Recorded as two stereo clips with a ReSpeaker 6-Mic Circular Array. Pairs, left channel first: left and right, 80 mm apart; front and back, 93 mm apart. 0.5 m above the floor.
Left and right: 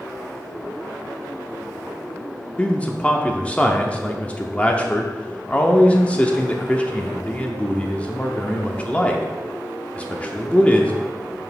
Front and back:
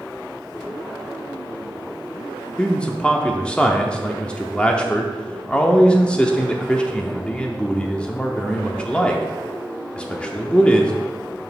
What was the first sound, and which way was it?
A man speaking, 55° left.